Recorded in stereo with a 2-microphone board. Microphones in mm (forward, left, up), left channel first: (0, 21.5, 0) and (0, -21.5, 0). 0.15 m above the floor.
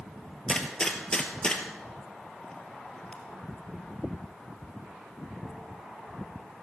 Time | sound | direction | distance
0.5 | a gunshot | 20° left (ahead or behind) | 1.5 m